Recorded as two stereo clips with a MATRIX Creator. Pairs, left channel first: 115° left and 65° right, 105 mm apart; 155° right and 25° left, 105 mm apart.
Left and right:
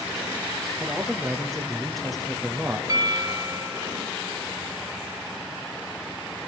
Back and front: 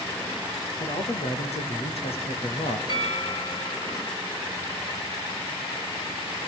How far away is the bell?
About 3.5 m.